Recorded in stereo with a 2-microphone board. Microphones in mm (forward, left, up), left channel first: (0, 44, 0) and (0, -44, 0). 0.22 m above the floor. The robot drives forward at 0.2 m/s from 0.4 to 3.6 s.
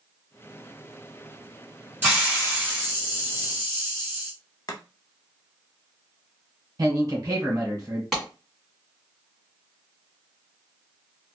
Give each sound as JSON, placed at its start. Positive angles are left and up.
{"t": 2.0, "sound": "a hiss", "side_deg": -20, "distance_m": 1.5}
{"t": 4.7, "sound": "chopping", "side_deg": 45, "distance_m": 0.5}
{"t": 6.8, "sound": "a man speaking", "side_deg": -45, "distance_m": 1.4}
{"t": 8.1, "sound": "a clap", "side_deg": 0, "distance_m": 2.0}